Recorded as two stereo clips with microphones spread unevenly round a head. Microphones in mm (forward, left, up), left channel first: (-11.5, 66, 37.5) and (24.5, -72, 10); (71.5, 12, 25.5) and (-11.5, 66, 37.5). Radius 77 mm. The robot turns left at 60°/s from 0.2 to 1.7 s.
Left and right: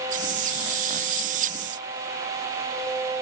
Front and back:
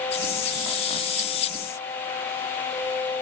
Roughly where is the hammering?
No hammering in this recording.